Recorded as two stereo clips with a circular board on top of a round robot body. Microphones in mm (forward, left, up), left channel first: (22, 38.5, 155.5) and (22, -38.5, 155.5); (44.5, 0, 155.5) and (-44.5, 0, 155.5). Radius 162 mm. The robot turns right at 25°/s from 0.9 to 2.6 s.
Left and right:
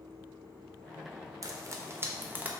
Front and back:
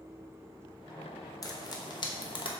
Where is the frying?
50° right, 1.1 m; by 2.5 s 20° right, 1.1 m.